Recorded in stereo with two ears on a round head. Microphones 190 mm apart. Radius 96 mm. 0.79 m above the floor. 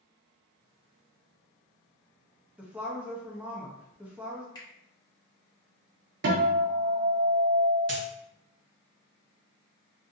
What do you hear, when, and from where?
2.6 s a woman speaking: 5° right (ahead or behind), 0.6 m
4.5 s a finger snap: 20° left (ahead or behind), 1.3 m
6.2 s a guitar: 60° right (ahead or behind), 0.7 m
7.9 s a dropped coin: 45° right (ahead or behind), 1.8 m